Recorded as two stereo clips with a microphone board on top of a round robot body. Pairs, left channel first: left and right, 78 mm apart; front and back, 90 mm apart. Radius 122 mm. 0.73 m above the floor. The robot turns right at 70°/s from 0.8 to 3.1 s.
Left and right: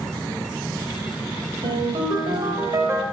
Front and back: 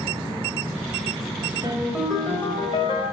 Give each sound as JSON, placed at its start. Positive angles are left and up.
{"t": 1.6, "sound": "a ringtone", "azimuth_deg": -120, "distance_m": 2.0}